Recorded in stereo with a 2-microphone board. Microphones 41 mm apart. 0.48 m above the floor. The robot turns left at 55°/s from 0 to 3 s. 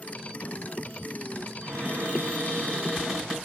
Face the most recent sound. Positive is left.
turn(degrees=-165)